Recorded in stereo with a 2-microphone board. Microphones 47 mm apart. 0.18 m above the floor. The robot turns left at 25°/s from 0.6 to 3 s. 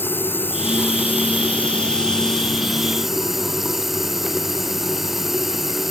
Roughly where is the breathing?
I don't hear breathing.